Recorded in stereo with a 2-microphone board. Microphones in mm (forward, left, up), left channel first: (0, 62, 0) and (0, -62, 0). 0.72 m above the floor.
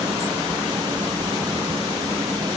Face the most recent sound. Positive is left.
No sound to turn to.